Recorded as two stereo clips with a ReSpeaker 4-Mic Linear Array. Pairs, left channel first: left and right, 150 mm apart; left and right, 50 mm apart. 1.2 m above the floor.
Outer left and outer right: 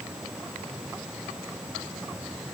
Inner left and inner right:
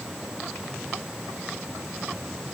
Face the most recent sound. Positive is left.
No sound to turn to.